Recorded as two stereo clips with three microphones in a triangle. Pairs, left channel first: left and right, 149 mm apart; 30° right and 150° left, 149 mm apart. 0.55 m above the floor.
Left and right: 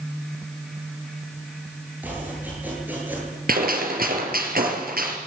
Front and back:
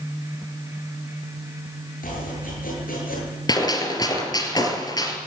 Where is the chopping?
10° right, 9.5 m.